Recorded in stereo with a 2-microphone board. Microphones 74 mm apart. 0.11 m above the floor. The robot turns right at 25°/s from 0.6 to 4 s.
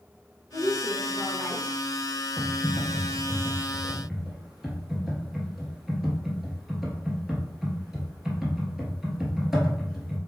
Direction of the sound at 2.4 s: 25° left (ahead or behind).